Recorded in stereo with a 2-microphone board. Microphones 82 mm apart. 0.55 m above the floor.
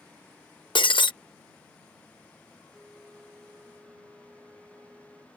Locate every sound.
0.8 s breaking glass: 75° left (ahead or behind)
2.7 s a flute: 20° right (ahead or behind)